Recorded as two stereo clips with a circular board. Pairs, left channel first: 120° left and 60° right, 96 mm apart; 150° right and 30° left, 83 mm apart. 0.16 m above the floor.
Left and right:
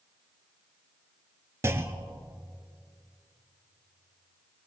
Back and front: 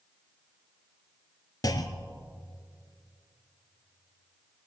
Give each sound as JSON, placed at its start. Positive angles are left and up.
{"t": 1.6, "sound": "a clunk", "azimuth_deg": -120, "distance_m": 0.7}